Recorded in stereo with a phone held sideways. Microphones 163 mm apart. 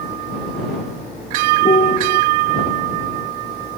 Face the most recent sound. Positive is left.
turn(degrees=50)  # may be behind; listen again after turning